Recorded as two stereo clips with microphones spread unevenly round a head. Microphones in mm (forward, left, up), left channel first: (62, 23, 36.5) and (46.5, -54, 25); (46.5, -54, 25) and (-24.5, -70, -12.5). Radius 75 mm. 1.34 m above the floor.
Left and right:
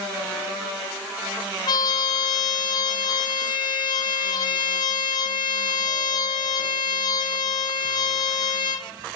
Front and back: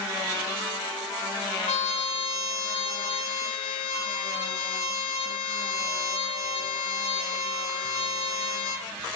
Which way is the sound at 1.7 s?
40° left.